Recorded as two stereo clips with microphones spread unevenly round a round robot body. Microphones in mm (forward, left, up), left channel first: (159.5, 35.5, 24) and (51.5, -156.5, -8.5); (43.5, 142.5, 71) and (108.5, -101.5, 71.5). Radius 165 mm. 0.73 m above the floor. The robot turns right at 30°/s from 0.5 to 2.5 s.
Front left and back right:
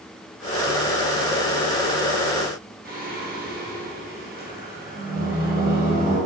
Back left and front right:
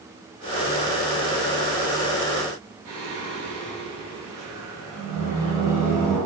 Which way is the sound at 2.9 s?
75° right.